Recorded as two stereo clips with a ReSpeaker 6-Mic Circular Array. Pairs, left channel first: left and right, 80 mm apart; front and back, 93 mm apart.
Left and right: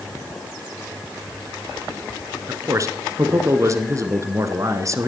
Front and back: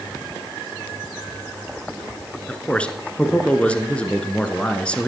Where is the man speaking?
75° right, 1.4 m.